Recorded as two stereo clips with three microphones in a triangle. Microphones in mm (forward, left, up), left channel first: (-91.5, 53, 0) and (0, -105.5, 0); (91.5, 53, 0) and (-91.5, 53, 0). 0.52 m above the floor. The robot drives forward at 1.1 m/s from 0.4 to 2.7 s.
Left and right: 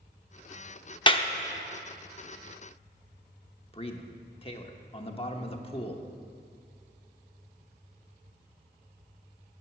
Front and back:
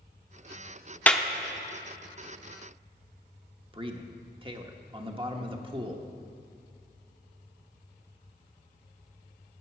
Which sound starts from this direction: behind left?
A man speaking, at 3.7 s.